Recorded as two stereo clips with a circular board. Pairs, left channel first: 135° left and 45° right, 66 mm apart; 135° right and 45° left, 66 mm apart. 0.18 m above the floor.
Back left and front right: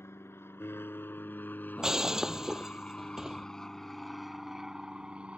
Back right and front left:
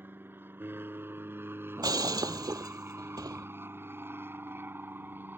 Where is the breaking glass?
35° left.